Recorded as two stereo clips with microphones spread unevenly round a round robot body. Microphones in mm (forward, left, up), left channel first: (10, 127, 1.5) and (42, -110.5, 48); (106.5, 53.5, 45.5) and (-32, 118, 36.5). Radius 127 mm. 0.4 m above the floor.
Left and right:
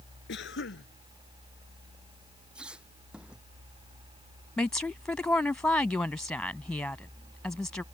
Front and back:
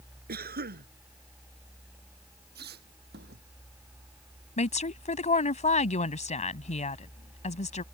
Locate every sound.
0.3 s a cough: 145° left
2.5 s a squeak: 170° right
4.6 s a woman speaking: 15° left